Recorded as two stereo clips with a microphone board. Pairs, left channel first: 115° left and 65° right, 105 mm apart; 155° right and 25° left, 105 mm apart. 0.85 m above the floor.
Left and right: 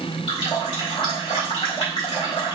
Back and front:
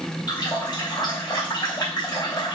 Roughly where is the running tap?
Behind left.